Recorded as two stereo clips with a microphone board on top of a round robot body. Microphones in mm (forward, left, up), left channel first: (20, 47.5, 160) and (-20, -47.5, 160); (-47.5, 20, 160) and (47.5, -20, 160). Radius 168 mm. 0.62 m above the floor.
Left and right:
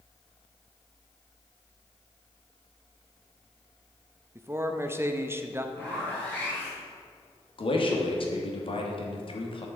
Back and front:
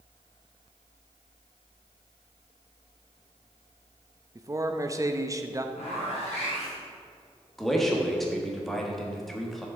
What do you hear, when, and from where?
4.3 s a man speaking: 60° right, 0.8 m
5.8 s a zipper: 140° left, 3 m
7.6 s a man speaking: 70° left, 1.6 m